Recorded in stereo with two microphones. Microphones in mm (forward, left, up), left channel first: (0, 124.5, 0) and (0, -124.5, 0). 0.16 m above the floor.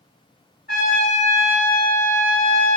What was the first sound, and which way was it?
A trumpet, 40° left (ahead or behind).